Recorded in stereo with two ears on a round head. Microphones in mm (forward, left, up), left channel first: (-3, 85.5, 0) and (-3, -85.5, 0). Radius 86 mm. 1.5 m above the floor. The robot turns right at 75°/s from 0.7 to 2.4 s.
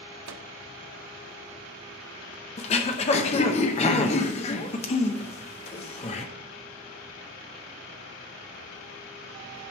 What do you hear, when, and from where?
0.3 s a microwave: 70° right (ahead or behind), 0.5 m
2.6 s throat clearing: 35° left (ahead or behind), 0.8 m